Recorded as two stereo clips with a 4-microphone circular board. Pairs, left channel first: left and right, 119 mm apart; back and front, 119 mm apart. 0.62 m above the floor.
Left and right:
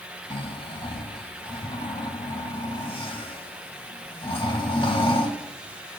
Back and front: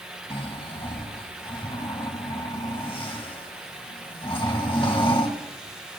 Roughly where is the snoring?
Behind left.